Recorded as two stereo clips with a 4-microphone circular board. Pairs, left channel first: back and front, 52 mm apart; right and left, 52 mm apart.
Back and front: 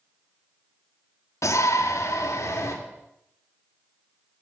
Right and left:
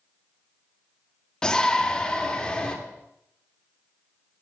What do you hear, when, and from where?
1.4 s a shout: 165° right, 1.6 m